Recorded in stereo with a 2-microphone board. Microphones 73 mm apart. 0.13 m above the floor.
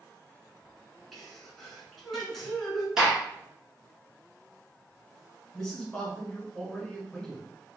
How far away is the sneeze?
About 1.1 m.